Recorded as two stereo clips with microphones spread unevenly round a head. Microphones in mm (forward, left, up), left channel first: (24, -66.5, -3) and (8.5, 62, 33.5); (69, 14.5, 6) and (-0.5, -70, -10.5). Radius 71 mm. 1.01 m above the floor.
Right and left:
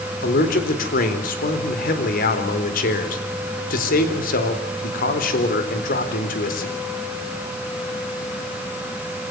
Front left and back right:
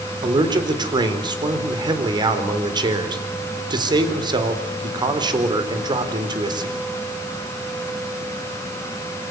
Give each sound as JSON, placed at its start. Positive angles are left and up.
{"t": 0.2, "sound": "a man speaking", "azimuth_deg": -80, "distance_m": 4.0}